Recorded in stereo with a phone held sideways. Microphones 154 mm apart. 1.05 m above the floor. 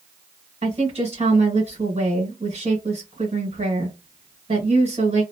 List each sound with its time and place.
0.6 s a woman speaking: 50° right (ahead or behind), 1.5 m